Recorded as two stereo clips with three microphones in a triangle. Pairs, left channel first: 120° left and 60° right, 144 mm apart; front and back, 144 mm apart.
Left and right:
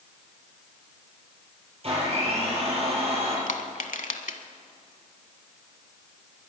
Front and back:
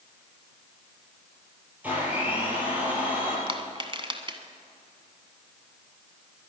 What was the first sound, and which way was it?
A blender, 100° right.